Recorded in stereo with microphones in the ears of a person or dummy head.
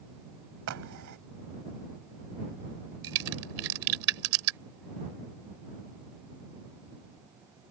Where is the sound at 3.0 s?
80° right.